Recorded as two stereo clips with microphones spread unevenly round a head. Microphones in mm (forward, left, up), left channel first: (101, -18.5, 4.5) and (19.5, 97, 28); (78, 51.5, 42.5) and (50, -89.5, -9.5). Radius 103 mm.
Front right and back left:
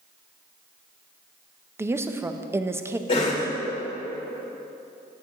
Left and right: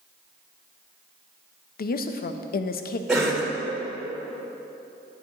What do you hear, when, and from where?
1.8 s a woman speaking: 50° left, 0.5 m
3.1 s a cough: 30° right, 1.3 m